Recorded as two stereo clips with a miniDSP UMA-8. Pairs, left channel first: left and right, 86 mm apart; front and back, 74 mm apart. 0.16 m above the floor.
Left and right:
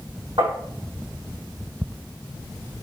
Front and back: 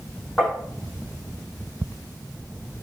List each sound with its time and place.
0.4 s tapping: 80° right, 6 m